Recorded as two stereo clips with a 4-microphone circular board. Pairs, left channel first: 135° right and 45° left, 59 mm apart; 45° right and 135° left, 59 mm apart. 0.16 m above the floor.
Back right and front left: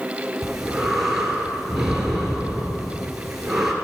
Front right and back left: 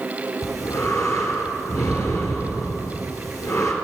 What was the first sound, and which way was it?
Breathing, 35° right.